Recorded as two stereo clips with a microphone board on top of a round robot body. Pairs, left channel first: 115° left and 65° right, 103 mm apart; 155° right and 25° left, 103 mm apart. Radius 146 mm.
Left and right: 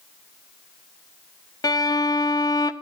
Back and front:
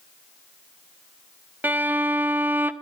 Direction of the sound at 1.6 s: 85° left.